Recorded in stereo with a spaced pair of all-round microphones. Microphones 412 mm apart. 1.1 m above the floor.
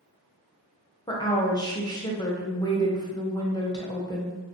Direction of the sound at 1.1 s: 10° left (ahead or behind).